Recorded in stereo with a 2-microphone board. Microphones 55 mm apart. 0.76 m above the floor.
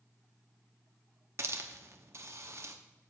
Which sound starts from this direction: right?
A hiss, at 1.4 s.